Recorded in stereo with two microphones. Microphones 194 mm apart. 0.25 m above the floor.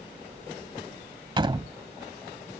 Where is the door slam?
25° right (ahead or behind).